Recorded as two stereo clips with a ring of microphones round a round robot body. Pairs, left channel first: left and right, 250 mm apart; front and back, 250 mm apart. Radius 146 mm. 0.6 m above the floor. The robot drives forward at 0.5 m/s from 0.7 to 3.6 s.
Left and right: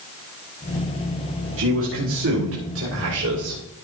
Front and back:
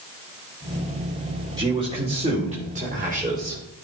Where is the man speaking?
110° right, 2.5 m; by 3.6 s 130° right, 3 m.